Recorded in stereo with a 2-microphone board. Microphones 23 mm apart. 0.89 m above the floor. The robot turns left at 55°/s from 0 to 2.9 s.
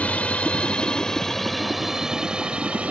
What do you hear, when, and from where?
0.0 s a drone: 70° left (ahead or behind); by 2.9 s 55° right (ahead or behind)